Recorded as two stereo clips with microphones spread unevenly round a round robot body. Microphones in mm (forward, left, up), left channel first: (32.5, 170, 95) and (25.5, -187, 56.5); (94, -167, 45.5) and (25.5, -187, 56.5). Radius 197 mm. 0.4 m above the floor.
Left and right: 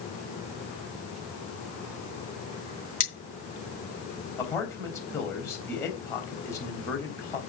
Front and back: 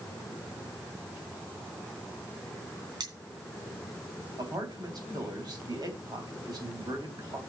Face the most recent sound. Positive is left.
turn(degrees=175)